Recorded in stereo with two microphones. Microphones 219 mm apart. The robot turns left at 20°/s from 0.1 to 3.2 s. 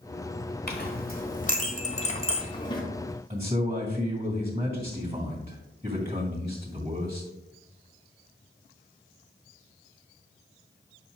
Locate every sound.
0.7 s a clink: 45° left (ahead or behind), 1.4 m; by 2.8 s 20° left (ahead or behind), 1.4 m
3.3 s a man speaking: 35° right (ahead or behind), 2 m